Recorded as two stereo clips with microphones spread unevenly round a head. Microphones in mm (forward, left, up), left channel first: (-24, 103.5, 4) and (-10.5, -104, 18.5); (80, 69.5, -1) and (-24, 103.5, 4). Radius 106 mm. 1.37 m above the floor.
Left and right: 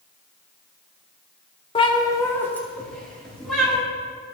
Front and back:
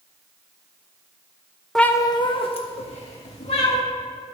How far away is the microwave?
No microwave in this recording.